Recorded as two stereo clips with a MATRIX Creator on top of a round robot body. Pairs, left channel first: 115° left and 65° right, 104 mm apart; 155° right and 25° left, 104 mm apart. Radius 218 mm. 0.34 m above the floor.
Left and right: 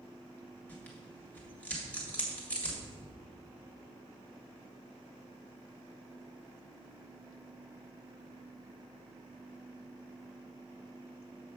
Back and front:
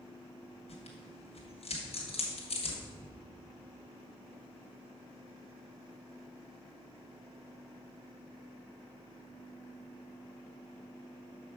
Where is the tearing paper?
170° right, 2 m.